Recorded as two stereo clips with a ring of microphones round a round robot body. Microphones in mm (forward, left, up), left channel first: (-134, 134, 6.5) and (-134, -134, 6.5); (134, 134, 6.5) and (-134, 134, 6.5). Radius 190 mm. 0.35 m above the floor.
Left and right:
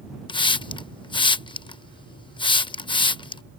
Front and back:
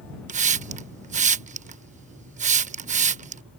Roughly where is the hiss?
Behind left.